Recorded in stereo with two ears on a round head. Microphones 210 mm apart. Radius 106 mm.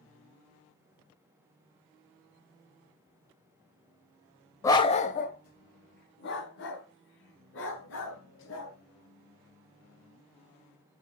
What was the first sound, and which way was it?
A dog barking, 15° left (ahead or behind).